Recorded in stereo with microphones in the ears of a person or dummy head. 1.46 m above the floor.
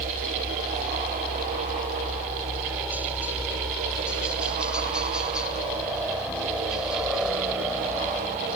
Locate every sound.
0.0 s a helicopter: 10° right (ahead or behind); by 8.6 s centre (ahead or behind)